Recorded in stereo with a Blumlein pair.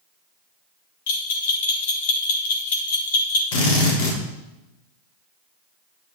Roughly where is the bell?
Ahead left.